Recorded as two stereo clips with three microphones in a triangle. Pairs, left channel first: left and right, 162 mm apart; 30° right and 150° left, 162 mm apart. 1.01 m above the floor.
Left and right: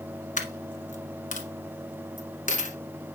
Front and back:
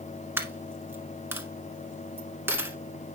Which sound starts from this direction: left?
A dropped coin, at 0.4 s.